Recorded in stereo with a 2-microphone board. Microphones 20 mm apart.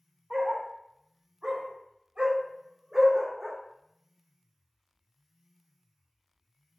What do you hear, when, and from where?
0.3 s a dog barking: 75° right (ahead or behind), 1.9 m; by 3.6 s 5° right (ahead or behind), 0.9 m